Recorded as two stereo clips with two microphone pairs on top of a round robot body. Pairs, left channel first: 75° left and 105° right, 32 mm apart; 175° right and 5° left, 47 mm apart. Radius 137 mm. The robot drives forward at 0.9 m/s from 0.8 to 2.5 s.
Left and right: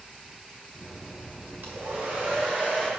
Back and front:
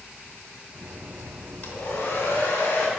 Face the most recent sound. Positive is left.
turn(degrees=-150)